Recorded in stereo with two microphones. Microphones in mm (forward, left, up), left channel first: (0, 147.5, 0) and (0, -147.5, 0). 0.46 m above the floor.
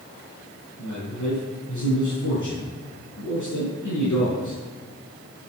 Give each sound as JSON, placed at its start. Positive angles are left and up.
{"t": 0.8, "sound": "a man speaking", "side_deg": 75, "distance_m": 5.5}